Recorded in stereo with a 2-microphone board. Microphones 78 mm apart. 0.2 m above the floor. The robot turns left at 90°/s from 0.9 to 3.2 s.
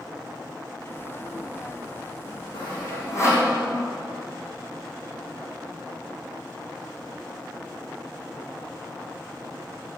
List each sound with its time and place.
2.5 s sawing: 80° left, 5 m; by 3.5 s 35° left (ahead or behind), 5 m